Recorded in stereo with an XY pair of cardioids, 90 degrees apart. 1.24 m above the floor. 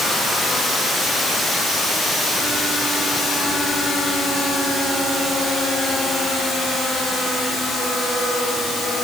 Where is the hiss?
I don't hear a hiss.